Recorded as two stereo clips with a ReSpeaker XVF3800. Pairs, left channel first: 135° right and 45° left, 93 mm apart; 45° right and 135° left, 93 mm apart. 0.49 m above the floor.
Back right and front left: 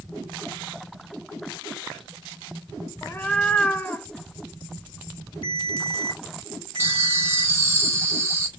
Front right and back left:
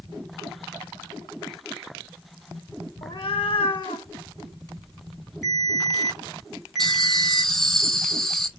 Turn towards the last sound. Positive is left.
turn(degrees=35)